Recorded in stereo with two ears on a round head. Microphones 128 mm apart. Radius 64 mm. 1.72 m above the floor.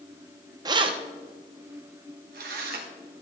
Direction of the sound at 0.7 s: 25° right (ahead or behind).